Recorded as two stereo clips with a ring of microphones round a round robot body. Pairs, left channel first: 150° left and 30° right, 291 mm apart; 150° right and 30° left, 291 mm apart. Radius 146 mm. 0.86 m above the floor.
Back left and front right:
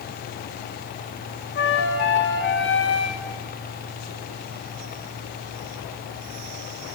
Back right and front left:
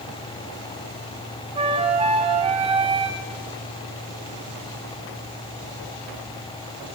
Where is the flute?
100° left, 1.6 m.